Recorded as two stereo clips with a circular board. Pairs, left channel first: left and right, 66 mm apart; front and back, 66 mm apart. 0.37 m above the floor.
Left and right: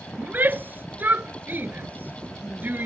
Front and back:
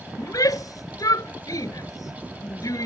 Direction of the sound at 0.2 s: 30° right.